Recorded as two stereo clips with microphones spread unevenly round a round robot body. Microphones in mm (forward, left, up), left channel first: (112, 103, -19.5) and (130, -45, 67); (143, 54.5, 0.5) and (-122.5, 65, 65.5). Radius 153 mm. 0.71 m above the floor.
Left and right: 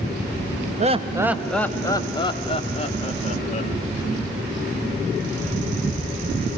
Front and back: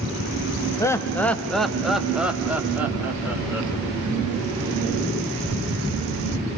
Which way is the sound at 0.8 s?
20° right.